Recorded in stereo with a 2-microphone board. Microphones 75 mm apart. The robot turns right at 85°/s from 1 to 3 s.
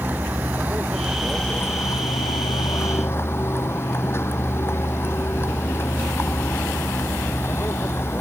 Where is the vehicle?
25° right; by 8.2 s 145° left.